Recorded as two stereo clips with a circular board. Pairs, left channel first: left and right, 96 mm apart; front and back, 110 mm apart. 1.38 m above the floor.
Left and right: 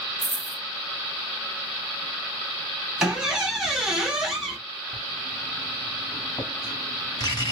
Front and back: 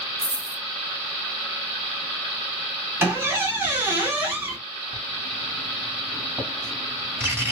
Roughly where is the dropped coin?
Behind.